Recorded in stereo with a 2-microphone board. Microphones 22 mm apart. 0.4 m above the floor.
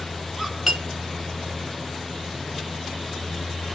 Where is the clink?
5° right (ahead or behind), 0.8 m.